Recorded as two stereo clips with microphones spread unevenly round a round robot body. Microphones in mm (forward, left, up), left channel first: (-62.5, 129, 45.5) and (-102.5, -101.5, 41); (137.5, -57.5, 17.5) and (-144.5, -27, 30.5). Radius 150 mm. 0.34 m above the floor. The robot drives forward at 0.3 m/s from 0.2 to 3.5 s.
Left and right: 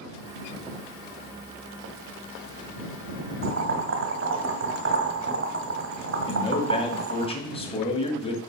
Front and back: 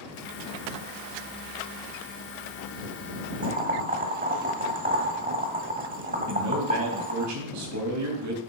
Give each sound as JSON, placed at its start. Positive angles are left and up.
{"t": 3.4, "sound": "boiling", "azimuth_deg": -125, "distance_m": 1.5}
{"t": 6.3, "sound": "a man speaking", "azimuth_deg": 145, "distance_m": 2.5}